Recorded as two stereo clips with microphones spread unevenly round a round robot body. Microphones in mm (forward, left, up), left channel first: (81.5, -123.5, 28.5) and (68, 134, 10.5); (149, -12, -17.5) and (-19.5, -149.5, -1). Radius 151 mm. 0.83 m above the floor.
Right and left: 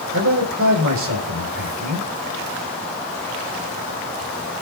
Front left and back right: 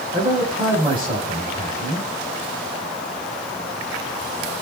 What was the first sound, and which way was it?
A man speaking, 145° left.